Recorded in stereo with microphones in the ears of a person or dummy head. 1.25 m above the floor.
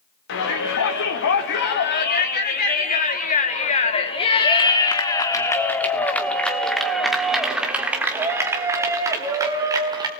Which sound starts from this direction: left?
A shout, at 0.3 s.